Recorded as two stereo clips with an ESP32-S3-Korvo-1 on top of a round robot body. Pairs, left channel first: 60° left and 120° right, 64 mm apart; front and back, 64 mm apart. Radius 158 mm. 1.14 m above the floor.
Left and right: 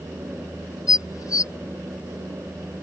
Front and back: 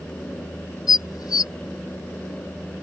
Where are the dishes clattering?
25° left.